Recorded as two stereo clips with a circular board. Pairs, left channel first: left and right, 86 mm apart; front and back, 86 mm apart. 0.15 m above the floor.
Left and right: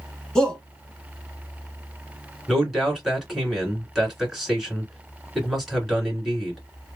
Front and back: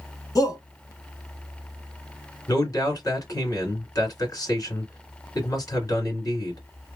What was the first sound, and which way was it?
A shout, 10° left.